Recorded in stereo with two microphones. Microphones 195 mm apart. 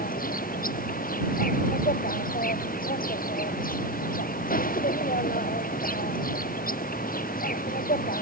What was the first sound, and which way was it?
An insect, 45° left (ahead or behind).